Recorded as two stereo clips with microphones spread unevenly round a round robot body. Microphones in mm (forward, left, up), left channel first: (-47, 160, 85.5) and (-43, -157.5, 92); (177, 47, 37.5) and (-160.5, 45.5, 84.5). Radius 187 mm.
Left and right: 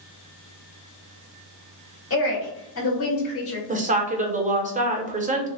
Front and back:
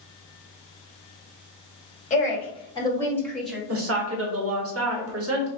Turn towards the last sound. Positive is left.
turn(degrees=-145)